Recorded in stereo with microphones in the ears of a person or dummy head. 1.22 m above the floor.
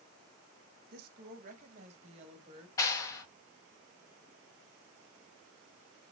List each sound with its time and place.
0.9 s a woman speaking: 55° right (ahead or behind), 1.2 m; by 2.7 s 30° right (ahead or behind), 2 m
2.8 s a clap: 20° left (ahead or behind), 1.3 m